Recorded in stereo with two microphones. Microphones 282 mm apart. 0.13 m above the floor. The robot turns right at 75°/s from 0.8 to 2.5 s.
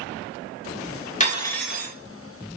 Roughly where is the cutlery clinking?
Behind left.